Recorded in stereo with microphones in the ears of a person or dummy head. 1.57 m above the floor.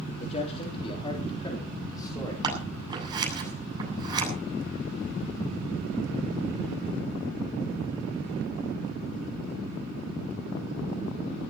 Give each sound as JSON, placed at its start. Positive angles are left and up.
{"t": 0.2, "sound": "a man speaking", "side_deg": 35, "distance_m": 3.0}
{"t": 2.4, "sound": "scissors", "side_deg": -25, "distance_m": 8.0}